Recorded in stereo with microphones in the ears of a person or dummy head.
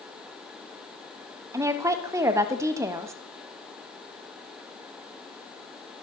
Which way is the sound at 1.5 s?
10° right (ahead or behind).